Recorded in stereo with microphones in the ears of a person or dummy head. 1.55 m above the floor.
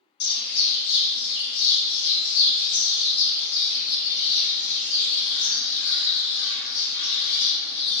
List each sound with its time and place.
0.2 s a bird: 50° left (ahead or behind), 1.1 m